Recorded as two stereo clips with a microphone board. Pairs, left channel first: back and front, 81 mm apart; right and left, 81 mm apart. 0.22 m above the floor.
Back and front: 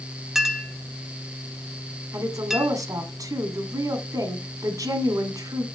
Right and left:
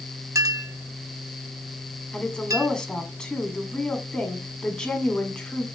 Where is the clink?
85° left, 0.7 m.